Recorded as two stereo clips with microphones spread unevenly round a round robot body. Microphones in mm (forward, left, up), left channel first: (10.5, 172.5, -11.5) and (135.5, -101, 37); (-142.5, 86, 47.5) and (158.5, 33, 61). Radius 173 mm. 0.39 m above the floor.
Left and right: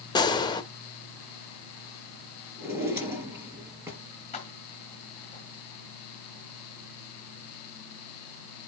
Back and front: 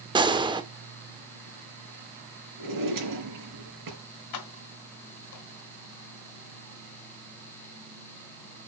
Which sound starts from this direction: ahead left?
A gunshot, at 0.1 s.